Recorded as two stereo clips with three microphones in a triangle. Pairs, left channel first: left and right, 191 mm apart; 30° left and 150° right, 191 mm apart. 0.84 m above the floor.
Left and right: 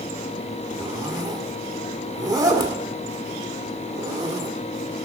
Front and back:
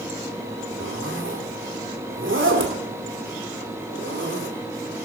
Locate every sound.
0.8 s a zipper: 160° right, 1.8 m